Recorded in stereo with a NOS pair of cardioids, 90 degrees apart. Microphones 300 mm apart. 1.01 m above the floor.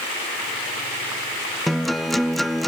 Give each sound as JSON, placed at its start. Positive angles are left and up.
{"t": 1.7, "sound": "a guitar", "azimuth_deg": 0, "distance_m": 0.7}